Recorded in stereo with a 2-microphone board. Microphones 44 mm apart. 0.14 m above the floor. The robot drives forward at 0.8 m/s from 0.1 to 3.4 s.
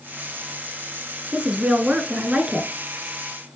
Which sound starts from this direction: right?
A woman speaking, at 1.3 s.